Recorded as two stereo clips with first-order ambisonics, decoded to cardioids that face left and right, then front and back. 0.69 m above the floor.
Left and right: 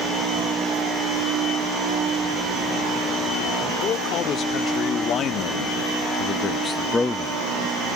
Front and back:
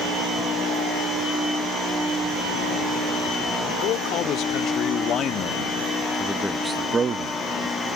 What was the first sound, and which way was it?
A man speaking, 40° left.